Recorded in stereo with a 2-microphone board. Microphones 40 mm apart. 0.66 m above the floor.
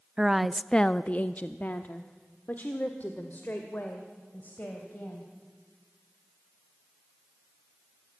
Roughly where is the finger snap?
I don't hear a finger snap.